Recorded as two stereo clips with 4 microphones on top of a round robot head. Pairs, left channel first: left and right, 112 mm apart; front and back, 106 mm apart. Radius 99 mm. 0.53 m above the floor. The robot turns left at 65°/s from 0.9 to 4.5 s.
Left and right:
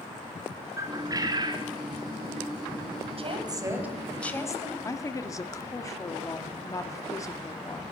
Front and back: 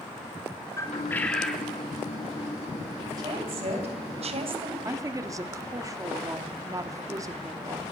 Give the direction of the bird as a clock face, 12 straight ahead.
2 o'clock.